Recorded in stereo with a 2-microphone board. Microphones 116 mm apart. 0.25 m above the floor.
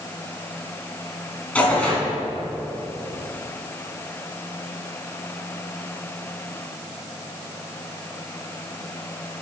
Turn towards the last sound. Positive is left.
turn(degrees=10)  # may be behind; listen again after turning